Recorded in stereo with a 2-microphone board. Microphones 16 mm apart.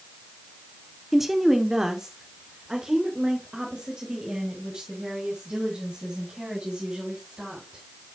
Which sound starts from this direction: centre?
A woman speaking, at 1.1 s.